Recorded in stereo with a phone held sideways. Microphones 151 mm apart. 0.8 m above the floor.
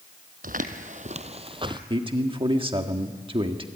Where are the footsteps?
65° right (ahead or behind), 1.6 m; by 1.8 s 30° right (ahead or behind), 1.4 m.